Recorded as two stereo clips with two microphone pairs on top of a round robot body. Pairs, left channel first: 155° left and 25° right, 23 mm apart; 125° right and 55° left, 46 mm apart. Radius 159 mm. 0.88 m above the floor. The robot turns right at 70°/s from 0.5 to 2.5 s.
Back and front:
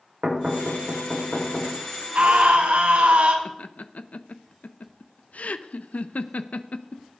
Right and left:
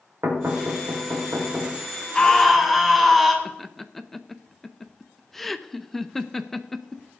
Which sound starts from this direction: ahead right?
A scream, at 2.1 s.